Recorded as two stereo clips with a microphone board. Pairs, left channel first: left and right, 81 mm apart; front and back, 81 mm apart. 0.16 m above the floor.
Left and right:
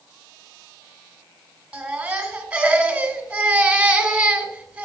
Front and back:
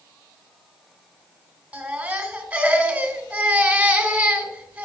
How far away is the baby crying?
About 1.1 m.